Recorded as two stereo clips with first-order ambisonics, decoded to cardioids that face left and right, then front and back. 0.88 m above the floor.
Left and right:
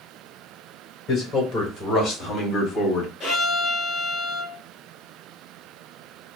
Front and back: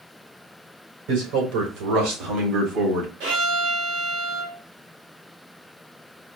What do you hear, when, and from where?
1.1 s a man speaking: 170° left, 3 m; by 3.1 s 145° left, 2.5 m
3.2 s a violin: 160° left, 3 m